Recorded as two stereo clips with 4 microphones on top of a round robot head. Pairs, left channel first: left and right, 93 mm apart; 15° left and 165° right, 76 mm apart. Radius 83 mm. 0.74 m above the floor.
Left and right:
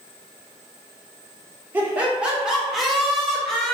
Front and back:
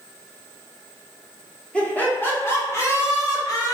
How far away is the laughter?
About 1.2 m.